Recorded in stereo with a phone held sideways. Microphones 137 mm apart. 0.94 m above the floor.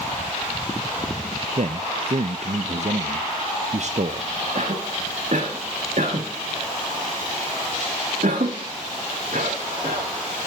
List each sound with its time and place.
1.6 s a man speaking: 55° right (ahead or behind), 0.5 m
4.5 s a cough: 65° right (ahead or behind), 1.5 m